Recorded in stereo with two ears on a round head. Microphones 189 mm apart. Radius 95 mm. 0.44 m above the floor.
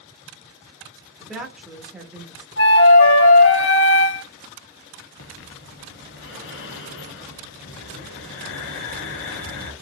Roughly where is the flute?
Left.